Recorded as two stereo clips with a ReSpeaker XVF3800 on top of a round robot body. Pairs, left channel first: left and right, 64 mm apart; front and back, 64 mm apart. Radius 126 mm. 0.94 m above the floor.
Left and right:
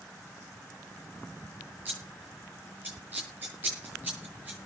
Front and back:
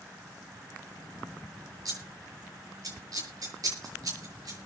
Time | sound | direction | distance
1.9 | scissors | 155° right | 8 m